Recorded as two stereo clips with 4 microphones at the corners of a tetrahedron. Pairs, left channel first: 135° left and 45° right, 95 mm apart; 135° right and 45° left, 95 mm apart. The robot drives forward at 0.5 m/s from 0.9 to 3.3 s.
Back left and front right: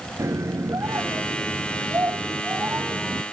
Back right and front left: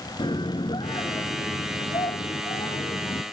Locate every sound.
0.2 s a scream: 105° right; by 3.2 s 115° right